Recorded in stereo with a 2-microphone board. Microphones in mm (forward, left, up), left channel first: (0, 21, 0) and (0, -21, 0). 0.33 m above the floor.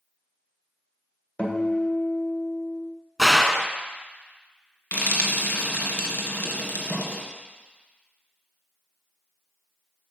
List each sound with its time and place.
1.4 s a guitar: 30° left (ahead or behind), 1.6 m
3.2 s a gunshot: centre (ahead or behind), 0.6 m
4.9 s frying: 50° left (ahead or behind), 1.7 m